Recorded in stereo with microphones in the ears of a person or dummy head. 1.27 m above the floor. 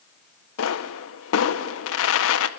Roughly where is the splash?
No splash in this recording.